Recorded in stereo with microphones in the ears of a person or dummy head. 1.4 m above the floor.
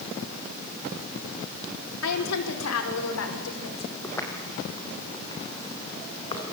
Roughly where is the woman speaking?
Left.